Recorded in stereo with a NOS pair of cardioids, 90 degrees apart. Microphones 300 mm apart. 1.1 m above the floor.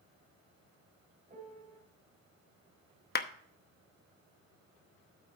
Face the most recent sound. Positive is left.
turn(degrees=35)